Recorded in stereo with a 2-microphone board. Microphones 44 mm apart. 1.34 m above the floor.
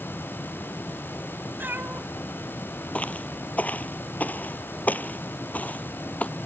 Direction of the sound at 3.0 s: 30° left (ahead or behind).